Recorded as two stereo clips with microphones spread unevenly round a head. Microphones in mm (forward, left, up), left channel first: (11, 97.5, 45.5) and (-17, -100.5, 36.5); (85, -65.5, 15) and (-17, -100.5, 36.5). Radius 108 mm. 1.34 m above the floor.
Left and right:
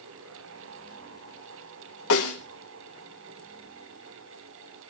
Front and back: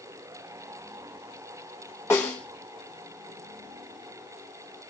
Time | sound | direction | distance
2.1 | a snare drum | 100° left | 2.5 m